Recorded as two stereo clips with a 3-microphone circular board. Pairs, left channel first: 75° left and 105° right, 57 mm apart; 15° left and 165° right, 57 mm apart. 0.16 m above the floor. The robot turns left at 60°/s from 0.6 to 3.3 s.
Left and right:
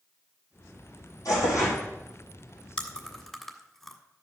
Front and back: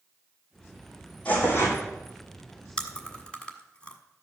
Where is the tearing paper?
85° left, 4.5 m; by 1.8 s 50° left, 4.5 m.